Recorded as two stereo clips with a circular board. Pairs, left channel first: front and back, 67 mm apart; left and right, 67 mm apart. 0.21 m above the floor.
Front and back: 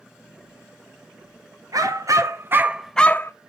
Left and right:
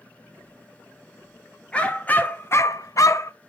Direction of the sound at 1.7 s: 165° left.